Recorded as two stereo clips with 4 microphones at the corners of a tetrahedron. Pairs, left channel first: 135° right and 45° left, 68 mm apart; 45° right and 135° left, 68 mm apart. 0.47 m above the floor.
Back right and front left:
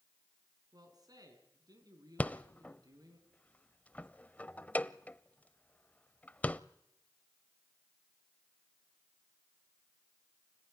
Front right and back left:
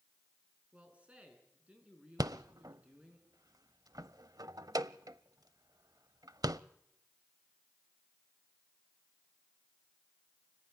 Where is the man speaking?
65° left, 5.5 m.